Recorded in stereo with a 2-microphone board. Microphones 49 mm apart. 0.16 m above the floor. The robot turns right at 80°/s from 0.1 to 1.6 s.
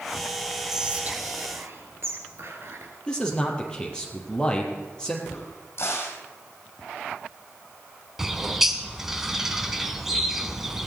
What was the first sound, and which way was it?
Whispering, 175° right.